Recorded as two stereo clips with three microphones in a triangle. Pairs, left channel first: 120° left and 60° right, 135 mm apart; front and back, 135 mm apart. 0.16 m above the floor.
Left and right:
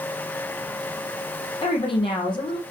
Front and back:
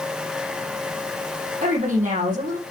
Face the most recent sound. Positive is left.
turn(degrees=170)